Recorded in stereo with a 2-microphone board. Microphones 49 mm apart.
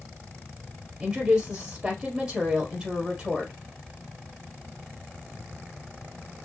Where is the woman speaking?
20° right (ahead or behind), 2.5 m.